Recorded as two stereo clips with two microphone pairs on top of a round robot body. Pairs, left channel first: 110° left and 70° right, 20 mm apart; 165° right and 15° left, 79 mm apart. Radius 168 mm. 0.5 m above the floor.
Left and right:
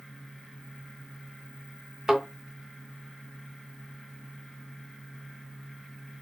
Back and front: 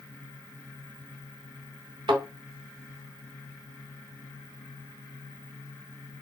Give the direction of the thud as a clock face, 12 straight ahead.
12 o'clock.